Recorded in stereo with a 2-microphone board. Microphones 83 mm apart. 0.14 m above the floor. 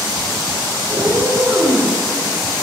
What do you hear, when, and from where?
0.9 s a cat meowing: 45° right (ahead or behind), 10 m